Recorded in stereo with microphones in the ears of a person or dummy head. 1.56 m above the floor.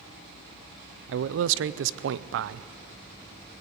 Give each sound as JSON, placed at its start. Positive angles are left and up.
{"t": 1.1, "sound": "a man speaking", "side_deg": -75, "distance_m": 0.6}